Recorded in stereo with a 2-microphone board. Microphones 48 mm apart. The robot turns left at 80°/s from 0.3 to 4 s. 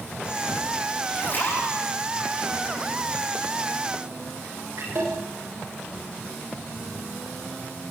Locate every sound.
1.1 s a splash: 25° left (ahead or behind), 8.5 m; by 5.2 s 75° right (ahead or behind), 8.5 m